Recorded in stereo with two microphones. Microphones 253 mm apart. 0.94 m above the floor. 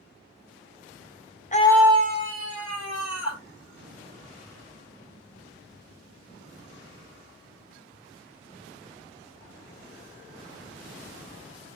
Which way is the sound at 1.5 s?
30° left (ahead or behind).